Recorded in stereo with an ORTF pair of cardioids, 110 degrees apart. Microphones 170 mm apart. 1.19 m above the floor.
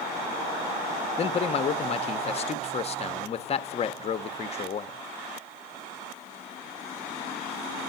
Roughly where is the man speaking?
Ahead left.